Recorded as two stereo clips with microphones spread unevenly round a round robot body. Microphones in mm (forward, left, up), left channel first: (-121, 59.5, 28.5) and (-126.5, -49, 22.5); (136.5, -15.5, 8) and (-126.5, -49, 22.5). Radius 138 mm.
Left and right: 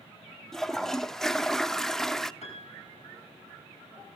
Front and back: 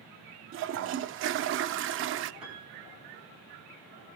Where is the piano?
100° left, 6 m.